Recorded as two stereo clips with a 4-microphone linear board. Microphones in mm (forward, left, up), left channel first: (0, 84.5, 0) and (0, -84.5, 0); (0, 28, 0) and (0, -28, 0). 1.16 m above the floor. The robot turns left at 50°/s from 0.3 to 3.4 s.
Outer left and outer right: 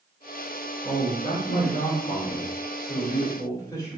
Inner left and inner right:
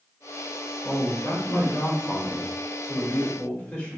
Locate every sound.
0.8 s a man speaking: 150° left, 2 m; by 4.0 s 20° left, 2 m